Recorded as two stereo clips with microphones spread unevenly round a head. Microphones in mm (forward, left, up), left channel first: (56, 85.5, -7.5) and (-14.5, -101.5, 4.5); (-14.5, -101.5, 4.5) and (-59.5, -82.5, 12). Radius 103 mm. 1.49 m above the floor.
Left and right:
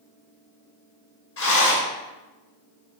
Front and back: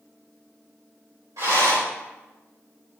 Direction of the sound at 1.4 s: 100° left.